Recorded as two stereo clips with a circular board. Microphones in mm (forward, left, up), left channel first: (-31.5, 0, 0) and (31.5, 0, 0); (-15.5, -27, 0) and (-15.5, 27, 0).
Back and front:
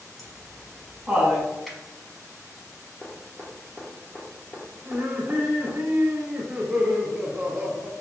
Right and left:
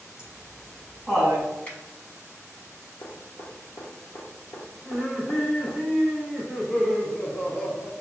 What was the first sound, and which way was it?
Laughter, 105° left.